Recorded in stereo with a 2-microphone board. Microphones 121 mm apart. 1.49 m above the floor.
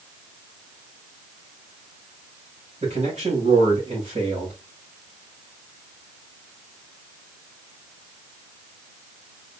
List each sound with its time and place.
2.8 s a man speaking: 65° right (ahead or behind), 3.5 m